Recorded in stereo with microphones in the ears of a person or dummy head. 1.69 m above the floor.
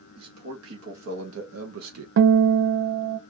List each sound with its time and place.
0.1 s a man speaking: 90° right, 1.9 m; by 2.1 s 80° right, 0.7 m
2.2 s a guitar: 70° right (ahead or behind), 0.6 m